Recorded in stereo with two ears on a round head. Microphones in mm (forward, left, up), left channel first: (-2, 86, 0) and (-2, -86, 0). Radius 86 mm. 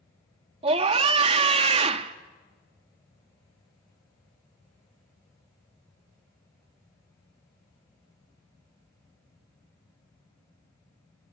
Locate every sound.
0.6 s a scream: 30° right (ahead or behind), 0.8 m